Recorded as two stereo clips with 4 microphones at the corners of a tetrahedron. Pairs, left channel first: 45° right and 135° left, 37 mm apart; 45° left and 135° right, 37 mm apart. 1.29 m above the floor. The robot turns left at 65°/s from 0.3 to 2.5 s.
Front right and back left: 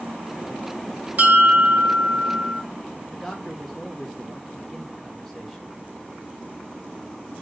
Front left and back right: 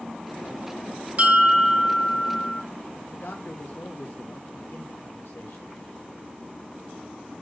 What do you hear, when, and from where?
1.2 s a bell: 175° left, 1.6 m; by 2.6 s 90° left, 1.6 m
3.1 s a man speaking: 40° left, 1.2 m